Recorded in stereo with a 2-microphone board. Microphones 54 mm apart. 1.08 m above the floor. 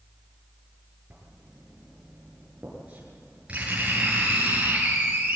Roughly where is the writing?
Right.